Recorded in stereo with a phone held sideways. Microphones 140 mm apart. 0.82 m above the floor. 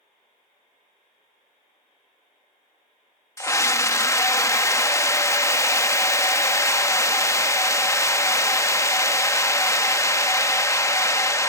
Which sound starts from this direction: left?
A scream, at 3.4 s.